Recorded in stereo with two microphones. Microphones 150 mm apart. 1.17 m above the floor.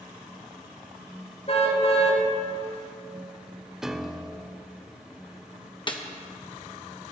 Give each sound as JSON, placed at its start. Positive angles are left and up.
{"t": 1.5, "sound": "a car horn", "side_deg": 50, "distance_m": 3.0}
{"t": 3.8, "sound": "a piano", "side_deg": -5, "distance_m": 0.5}
{"t": 5.9, "sound": "a snare drum", "side_deg": 35, "distance_m": 1.1}